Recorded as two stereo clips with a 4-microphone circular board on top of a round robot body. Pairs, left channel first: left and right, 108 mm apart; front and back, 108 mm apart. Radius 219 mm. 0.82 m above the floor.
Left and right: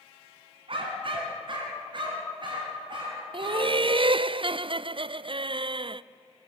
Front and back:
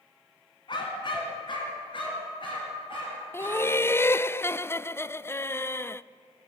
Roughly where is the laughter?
Ahead right.